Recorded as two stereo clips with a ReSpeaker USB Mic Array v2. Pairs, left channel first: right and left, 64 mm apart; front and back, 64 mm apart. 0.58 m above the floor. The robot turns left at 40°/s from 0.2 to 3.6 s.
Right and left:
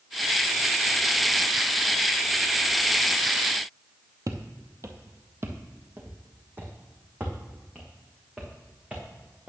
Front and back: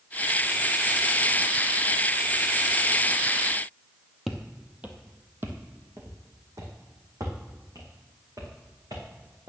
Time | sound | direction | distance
4.3 | footsteps | 95° left | 1.0 m